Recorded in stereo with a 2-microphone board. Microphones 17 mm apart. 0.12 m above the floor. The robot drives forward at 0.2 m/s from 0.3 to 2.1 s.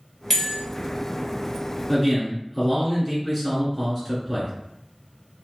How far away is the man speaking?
About 1.6 m.